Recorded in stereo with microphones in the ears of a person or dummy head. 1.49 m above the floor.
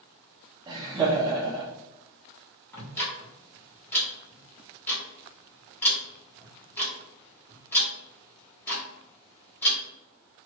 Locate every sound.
0.7 s laughter: 20° right (ahead or behind), 0.6 m
2.7 s ticking: 10° left (ahead or behind), 1.2 m